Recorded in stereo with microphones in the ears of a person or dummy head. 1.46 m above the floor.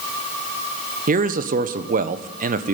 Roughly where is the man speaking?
Right.